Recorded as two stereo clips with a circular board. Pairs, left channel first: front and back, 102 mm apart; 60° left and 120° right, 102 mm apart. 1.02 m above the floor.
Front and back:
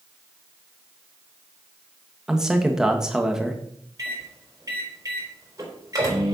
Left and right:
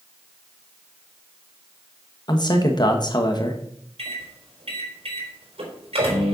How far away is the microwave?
About 4 m.